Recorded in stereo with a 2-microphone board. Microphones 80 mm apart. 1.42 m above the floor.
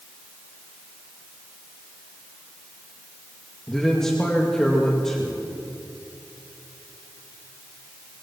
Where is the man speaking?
5° left (ahead or behind), 2.5 m.